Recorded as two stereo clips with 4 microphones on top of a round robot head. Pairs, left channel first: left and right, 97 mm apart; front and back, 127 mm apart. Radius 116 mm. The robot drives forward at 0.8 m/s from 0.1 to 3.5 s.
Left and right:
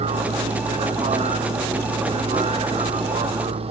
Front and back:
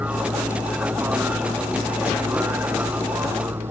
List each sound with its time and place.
0.0 s a vehicle: 100° right; by 3.7 s 105° right